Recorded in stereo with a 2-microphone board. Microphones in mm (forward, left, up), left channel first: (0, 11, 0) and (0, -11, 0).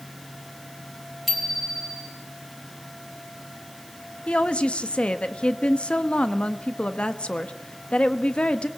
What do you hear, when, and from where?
1.3 s a bicycle bell: 5° right (ahead or behind), 3.5 m
4.3 s a woman speaking: 60° left (ahead or behind), 1.1 m